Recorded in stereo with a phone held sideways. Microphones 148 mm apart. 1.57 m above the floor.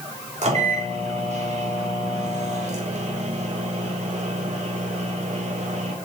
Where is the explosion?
No explosion in this recording.